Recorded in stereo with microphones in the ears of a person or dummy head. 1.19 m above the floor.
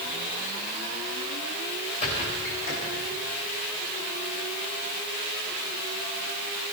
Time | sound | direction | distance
2.0 | a squeak | 35° left (ahead or behind) | 4.5 m